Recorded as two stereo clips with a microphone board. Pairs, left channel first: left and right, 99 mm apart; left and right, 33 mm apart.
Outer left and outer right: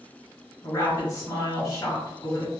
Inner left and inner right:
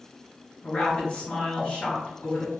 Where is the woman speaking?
30° left (ahead or behind), 1.7 m.